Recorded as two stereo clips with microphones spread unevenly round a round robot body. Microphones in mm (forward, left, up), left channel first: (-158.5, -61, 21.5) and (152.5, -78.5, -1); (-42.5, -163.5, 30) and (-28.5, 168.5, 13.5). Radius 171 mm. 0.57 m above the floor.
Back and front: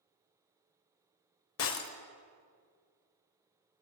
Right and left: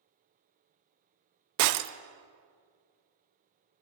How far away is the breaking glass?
About 0.6 m.